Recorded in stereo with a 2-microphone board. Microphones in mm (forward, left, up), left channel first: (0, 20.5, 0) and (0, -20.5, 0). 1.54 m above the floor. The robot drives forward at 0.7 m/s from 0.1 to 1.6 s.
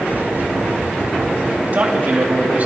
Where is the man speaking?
40° right (ahead or behind), 3.5 m.